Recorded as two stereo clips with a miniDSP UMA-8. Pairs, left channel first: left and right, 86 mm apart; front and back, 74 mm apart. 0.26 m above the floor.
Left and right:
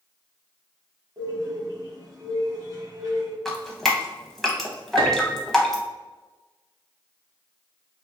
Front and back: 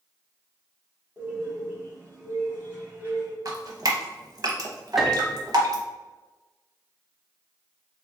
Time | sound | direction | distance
1.2 | a bird | 125° right | 1.4 m
3.5 | dripping | 175° left | 0.7 m
5.0 | a piano | 90° right | 0.5 m